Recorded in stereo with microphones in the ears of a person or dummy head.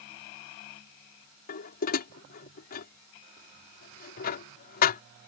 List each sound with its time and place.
1.5 s dishes clattering: 50° left (ahead or behind)